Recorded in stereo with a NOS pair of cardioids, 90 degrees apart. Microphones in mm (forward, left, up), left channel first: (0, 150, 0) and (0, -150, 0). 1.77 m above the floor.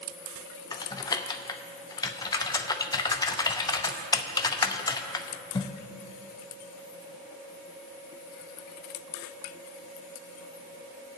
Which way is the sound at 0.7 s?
15° left.